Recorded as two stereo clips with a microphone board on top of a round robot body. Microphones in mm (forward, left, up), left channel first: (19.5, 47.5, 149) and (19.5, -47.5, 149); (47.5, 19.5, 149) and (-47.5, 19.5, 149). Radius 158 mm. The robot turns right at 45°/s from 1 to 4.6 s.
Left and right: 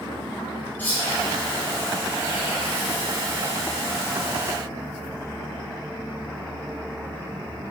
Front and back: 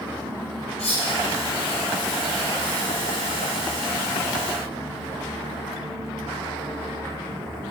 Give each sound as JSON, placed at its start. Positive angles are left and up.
{"t": 0.8, "sound": "cutlery clinking", "azimuth_deg": 20, "distance_m": 1.0}